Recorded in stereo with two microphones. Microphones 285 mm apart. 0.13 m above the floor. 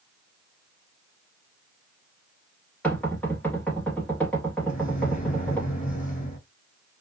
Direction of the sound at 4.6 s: 30° left (ahead or behind).